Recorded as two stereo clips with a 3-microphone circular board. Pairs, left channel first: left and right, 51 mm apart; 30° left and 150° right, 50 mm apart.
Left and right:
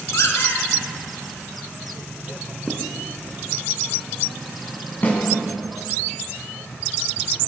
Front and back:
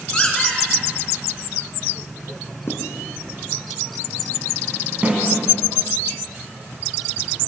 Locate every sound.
0.1 s a squeak: 100° left, 4.5 m
2.7 s writing: straight ahead, 3 m
5.0 s a snare drum: 145° left, 6 m